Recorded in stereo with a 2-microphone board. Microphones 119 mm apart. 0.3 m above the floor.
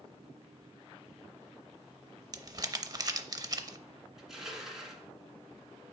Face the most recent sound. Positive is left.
turn(degrees=-5)  # may be behind; listen again after turning